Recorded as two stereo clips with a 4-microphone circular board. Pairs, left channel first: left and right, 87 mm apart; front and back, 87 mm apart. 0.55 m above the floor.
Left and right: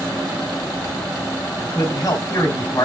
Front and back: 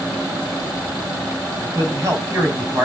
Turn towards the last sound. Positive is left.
turn(degrees=130)